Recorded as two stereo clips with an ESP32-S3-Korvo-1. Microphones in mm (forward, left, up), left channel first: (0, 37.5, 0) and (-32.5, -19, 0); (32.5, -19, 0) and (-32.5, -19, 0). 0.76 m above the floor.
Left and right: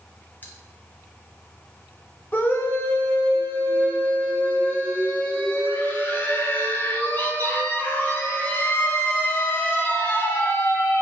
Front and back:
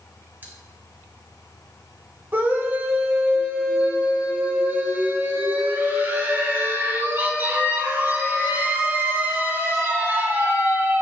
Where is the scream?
120° left, 2.5 m.